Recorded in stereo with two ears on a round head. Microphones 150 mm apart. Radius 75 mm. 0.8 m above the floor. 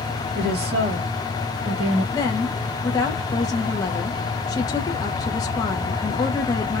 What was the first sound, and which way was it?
A woman speaking, 65° right (ahead or behind).